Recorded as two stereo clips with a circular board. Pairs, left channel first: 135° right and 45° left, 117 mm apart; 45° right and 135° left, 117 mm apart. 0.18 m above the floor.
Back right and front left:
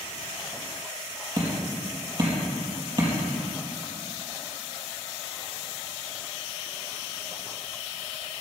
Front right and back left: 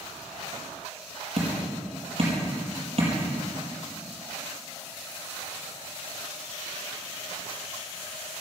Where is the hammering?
100° left, 5 m.